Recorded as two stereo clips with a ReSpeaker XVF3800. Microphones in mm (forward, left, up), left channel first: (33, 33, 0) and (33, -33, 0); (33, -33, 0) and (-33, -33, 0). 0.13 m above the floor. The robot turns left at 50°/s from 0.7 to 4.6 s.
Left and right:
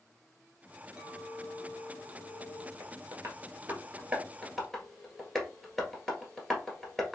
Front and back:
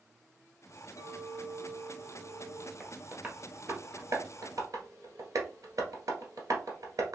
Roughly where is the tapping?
Right.